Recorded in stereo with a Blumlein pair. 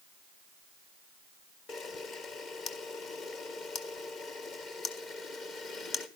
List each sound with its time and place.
1.7 s a camera shutter: 30° left, 1.5 m